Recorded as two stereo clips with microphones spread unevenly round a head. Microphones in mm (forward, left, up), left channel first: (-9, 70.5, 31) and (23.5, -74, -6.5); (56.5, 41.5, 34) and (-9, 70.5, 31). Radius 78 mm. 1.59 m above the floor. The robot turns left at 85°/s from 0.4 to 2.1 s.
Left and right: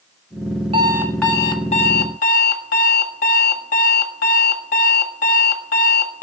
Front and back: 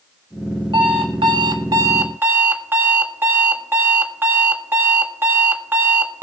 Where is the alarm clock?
140° right, 1.6 m; by 6.2 s 105° left, 1.6 m.